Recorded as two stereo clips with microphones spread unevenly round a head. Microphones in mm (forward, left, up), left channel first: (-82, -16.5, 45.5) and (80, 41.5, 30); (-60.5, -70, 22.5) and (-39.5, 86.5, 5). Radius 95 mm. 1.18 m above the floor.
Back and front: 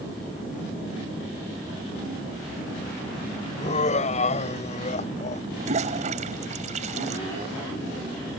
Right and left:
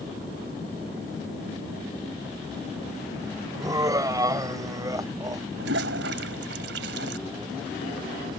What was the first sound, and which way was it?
Laughter, 150° left.